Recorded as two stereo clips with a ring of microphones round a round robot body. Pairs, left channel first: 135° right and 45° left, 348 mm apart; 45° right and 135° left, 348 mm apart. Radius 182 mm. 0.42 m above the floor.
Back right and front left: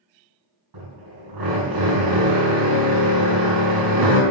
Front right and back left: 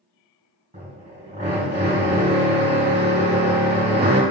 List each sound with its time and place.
0.7 s a drill: 65° left, 4.5 m